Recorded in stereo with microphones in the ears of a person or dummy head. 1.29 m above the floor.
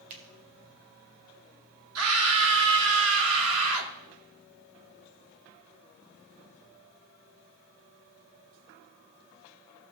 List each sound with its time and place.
0.1 s a finger snap: 45° right (ahead or behind), 1.6 m
1.9 s a scream: 85° right, 1.8 m